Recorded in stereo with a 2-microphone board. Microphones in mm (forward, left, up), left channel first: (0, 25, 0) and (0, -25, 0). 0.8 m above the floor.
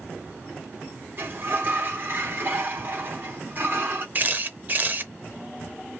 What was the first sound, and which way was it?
A sliding door, 45° right (ahead or behind).